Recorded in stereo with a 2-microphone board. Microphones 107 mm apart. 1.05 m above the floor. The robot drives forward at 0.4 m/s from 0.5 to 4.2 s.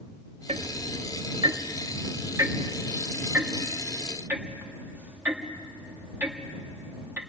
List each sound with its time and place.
0.5 s ticking: 70° right (ahead or behind), 0.5 m; by 7.2 s 20° right (ahead or behind), 1.6 m